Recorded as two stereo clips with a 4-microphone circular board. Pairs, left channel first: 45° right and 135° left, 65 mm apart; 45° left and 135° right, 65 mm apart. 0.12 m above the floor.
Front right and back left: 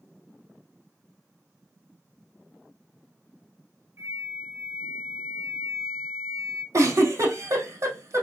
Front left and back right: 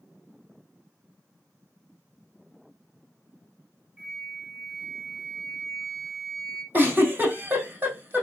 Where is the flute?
150° left, 2 m.